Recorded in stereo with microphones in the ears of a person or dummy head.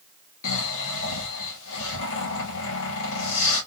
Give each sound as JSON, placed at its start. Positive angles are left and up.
{"t": 0.4, "sound": "snoring", "side_deg": 75, "distance_m": 2.0}